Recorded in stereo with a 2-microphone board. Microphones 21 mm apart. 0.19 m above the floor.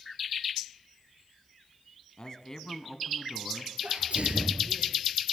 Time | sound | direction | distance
2.2 | a man speaking | 35° left (ahead or behind) | 1.9 m
3.8 | a sneeze | 70° right (ahead or behind) | 4 m